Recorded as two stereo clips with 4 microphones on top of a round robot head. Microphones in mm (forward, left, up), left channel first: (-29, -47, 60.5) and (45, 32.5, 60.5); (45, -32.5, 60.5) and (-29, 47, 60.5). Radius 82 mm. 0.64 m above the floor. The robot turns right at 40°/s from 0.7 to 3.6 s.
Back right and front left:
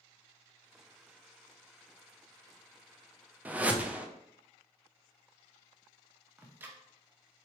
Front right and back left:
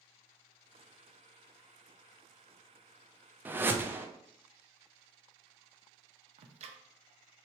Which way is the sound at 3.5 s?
95° left.